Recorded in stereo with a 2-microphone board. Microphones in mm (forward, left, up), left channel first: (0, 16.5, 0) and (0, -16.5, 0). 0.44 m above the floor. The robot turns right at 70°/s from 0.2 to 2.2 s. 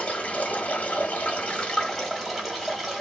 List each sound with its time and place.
0.0 s running water: 45° left, 1.3 m; by 3.0 s 175° right, 1.3 m